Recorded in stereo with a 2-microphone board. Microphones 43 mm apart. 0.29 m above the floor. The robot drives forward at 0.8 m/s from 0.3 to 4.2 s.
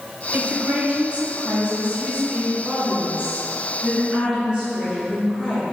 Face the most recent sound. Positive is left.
turn(degrees=-15)  # may be behind; listen again after turning